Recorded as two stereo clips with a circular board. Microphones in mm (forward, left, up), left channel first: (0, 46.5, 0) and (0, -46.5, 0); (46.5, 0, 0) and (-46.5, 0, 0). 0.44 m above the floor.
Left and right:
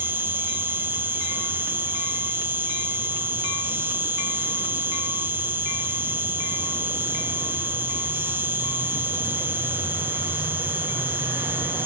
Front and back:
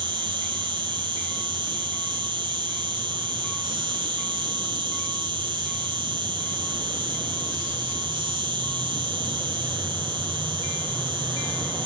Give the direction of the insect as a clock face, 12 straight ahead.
5 o'clock.